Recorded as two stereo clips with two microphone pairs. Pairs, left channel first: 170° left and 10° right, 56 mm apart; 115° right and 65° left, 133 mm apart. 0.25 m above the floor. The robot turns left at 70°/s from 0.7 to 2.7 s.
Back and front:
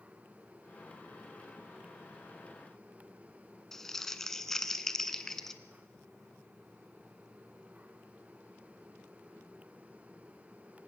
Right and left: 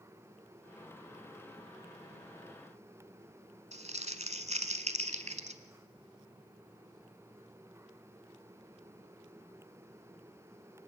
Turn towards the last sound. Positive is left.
turn(degrees=90)